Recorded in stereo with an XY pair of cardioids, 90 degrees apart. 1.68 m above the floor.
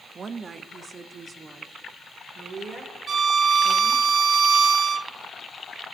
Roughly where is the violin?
Ahead right.